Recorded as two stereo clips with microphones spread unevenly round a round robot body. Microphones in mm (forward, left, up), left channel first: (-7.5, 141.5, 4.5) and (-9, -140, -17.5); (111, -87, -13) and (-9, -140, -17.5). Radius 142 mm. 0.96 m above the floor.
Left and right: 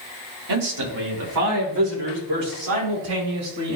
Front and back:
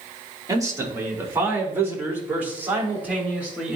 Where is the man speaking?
90° right, 2.5 m; by 3.8 s 75° right, 5.5 m.